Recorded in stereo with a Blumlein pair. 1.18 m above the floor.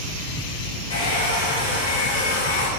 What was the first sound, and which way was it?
A hair dryer, 60° left.